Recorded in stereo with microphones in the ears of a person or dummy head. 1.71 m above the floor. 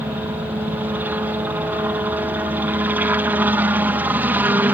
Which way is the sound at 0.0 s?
15° right (ahead or behind).